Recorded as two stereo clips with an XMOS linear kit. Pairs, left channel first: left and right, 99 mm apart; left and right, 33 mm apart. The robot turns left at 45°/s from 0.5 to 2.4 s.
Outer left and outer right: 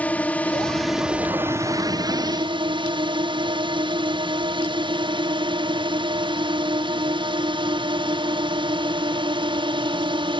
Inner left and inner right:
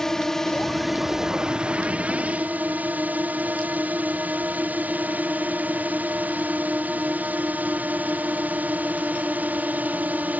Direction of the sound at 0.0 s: 15° left.